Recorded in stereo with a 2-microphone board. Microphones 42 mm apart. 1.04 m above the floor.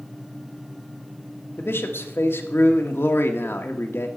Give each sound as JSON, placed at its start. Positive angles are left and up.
{"t": 1.6, "sound": "a man speaking", "side_deg": 65, "distance_m": 1.2}